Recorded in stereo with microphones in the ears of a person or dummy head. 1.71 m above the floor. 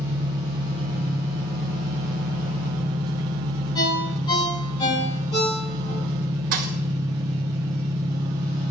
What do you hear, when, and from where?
0.0 s an engine running: 25° right (ahead or behind), 1.1 m
3.8 s a ringtone: 25° left (ahead or behind), 8 m
6.5 s a thud: 55° right (ahead or behind), 2.5 m